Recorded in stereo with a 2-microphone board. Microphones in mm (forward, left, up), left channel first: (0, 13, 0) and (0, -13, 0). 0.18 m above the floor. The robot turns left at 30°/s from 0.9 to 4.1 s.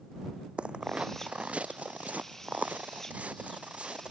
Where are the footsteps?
50° right (ahead or behind); by 4.1 s 45° right (ahead or behind).